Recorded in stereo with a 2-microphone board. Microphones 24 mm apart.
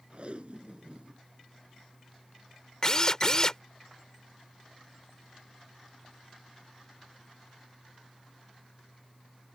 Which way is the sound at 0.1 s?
55° right (ahead or behind).